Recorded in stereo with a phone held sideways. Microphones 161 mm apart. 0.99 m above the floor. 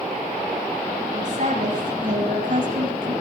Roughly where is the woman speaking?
Right.